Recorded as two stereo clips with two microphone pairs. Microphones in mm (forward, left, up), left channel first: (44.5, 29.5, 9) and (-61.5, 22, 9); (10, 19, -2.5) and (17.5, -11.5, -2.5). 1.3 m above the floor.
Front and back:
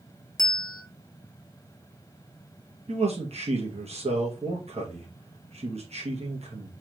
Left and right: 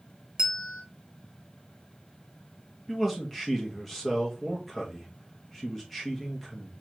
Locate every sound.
0.4 s a bell: 30° right, 0.7 m
2.9 s a man speaking: 170° right, 1.4 m